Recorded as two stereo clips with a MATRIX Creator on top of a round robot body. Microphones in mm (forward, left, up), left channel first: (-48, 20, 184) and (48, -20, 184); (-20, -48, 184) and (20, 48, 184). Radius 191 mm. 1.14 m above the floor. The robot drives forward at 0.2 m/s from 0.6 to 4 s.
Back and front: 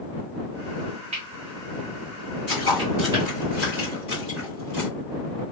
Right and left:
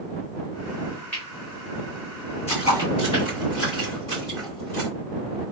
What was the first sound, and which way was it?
Cutlery clinking, 40° right.